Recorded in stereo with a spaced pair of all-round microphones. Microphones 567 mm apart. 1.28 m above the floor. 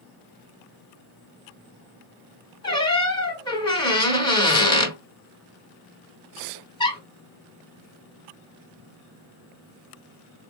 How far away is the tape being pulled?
No tape being pulled in this recording.